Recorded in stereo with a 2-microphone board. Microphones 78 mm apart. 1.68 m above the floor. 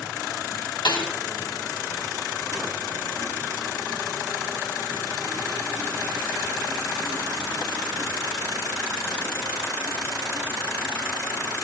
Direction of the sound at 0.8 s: 75° left (ahead or behind).